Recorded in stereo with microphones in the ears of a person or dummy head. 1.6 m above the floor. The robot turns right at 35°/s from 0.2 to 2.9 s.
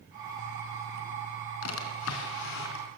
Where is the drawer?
85° left, 4 m; by 2.9 s 125° left, 4 m.